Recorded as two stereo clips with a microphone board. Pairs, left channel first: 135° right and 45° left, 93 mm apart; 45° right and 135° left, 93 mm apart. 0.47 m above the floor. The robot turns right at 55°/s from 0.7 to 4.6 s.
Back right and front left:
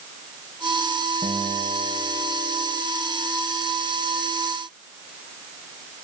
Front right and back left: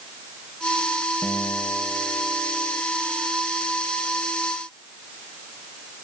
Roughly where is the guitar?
Ahead.